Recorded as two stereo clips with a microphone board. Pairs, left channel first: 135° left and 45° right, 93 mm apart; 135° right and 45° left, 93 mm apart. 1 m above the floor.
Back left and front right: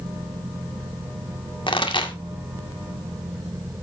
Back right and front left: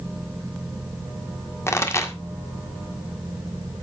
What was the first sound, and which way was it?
A pop, 165° left.